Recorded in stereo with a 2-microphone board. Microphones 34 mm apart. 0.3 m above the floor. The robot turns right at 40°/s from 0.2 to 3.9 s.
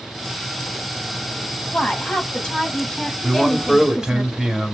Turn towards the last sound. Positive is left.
turn(degrees=-20)  # may be behind; listen again after turning